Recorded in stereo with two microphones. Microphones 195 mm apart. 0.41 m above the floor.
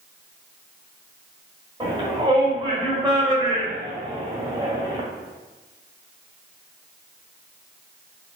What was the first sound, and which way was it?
A shout, 25° right (ahead or behind).